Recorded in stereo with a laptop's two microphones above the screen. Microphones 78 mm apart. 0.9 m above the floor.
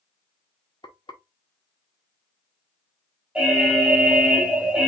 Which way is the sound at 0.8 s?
85° left.